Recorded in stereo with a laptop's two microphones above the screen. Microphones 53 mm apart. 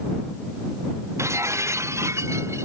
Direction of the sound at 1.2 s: 60° right (ahead or behind).